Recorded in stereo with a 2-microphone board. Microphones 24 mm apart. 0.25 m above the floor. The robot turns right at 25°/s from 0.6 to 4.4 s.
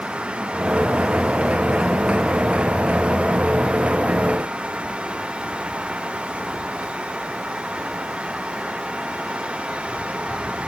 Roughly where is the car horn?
I don't hear a car horn.